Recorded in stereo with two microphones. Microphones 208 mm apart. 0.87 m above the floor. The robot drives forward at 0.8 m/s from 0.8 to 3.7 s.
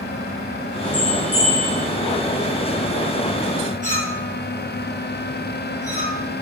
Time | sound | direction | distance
0.9 | a bell | 10° right (ahead or behind) | 9.5 m
3.8 | a clink | 35° right (ahead or behind) | 9.5 m